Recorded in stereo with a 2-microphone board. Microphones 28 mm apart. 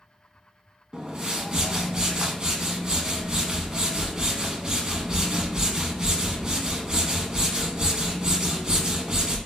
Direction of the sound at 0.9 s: 25° right (ahead or behind).